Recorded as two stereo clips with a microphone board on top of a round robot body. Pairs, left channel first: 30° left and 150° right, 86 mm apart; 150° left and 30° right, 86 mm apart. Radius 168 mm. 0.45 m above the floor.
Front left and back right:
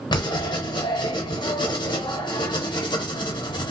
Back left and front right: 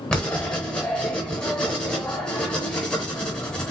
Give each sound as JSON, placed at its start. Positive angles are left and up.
{"t": 0.1, "sound": "writing", "azimuth_deg": 70, "distance_m": 0.7}